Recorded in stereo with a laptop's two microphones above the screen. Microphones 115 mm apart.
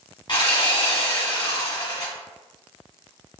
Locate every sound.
0.3 s sawing: 40° left (ahead or behind), 1.3 m